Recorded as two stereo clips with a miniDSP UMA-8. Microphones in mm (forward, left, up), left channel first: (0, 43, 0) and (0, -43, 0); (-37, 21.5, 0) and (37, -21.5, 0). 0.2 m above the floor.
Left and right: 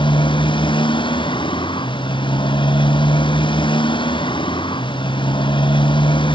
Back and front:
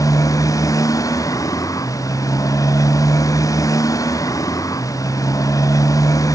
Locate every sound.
0.0 s a motorcycle: 100° left